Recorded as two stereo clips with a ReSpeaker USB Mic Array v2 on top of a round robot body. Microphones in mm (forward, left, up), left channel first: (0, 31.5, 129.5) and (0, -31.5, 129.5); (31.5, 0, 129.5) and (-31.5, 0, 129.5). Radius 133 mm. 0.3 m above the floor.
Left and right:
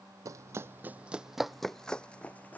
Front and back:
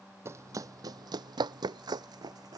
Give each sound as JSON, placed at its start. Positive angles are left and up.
{"t": 0.2, "sound": "running footsteps", "azimuth_deg": -130}